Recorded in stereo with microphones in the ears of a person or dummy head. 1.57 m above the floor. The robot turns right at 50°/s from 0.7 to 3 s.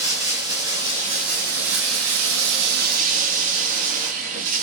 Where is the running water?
165° right, 2 m; by 4.6 s 50° right, 2 m.